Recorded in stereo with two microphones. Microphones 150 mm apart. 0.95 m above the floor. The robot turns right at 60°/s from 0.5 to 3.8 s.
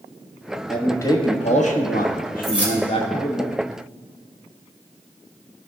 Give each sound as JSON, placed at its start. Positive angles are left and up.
{"t": 0.7, "sound": "a man speaking", "azimuth_deg": 0, "distance_m": 1.3}
{"t": 2.4, "sound": "keys jangling", "side_deg": 0, "distance_m": 2.5}